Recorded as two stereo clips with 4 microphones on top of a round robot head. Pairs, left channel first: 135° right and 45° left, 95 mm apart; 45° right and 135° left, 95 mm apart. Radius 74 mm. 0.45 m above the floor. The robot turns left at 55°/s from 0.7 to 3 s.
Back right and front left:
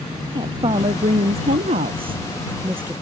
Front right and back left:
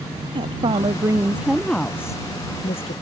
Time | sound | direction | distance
0.3 | a woman speaking | 95° left | ?